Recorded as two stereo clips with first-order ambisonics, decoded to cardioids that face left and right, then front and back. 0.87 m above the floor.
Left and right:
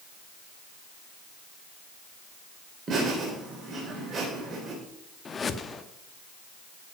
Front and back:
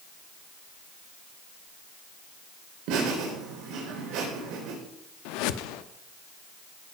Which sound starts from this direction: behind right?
Laughter, at 2.9 s.